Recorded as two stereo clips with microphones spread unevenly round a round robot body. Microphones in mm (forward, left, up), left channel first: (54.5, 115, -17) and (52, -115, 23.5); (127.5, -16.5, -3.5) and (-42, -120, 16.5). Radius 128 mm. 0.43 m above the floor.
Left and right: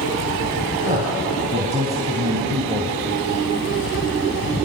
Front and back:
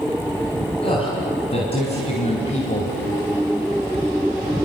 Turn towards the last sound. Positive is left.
turn(degrees=-20)